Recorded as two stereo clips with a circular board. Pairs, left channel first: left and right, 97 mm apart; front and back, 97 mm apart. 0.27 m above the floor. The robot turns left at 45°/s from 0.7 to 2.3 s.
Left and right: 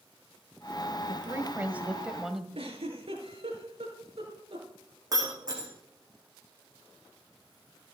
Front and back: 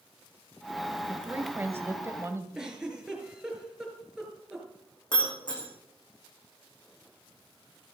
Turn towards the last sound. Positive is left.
turn(degrees=-40)